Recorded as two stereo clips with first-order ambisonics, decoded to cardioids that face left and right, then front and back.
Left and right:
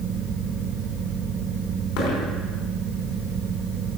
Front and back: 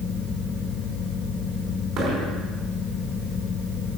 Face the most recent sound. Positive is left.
turn(degrees=115)